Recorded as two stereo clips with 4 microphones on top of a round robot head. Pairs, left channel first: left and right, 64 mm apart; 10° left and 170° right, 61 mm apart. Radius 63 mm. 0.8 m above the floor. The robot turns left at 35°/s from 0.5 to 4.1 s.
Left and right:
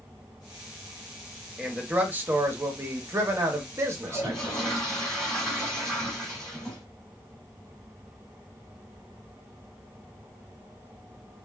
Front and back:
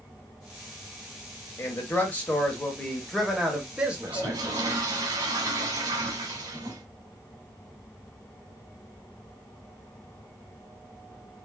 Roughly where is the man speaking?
Ahead.